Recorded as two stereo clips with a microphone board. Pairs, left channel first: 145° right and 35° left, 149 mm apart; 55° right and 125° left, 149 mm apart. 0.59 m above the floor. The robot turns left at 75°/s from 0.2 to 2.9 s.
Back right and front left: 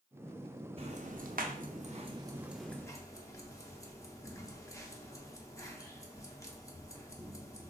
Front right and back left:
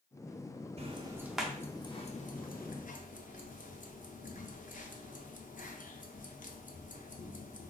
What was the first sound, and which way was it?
Ticking, 80° left.